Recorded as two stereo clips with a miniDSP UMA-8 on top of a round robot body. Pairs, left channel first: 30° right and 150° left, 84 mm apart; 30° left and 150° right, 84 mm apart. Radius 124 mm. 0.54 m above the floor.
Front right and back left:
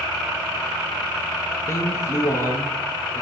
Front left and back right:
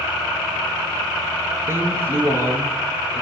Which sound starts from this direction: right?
A man speaking, at 1.7 s.